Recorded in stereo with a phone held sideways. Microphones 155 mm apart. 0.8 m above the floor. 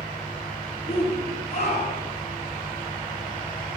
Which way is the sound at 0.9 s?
45° left (ahead or behind).